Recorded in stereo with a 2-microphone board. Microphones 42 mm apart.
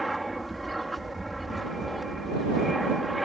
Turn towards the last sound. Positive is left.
turn(degrees=0)  # may be behind; listen again after turning